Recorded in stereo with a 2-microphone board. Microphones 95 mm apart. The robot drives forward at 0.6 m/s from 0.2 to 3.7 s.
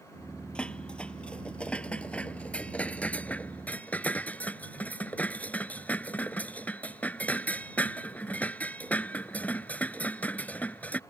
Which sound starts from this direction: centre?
Dishes clattering, at 0.6 s.